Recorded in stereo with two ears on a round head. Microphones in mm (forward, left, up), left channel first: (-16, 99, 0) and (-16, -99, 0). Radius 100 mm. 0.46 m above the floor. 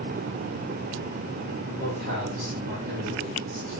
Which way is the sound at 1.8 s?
60° right (ahead or behind).